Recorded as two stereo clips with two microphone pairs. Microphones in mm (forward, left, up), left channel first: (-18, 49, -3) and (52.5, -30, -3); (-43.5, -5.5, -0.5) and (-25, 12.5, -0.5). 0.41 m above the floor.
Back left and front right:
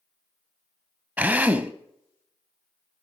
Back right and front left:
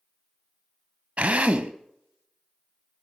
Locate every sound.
1.2 s a drill: 25° left, 0.9 m